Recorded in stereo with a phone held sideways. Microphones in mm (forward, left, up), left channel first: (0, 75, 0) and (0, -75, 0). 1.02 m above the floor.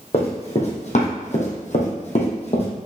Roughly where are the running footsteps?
Left.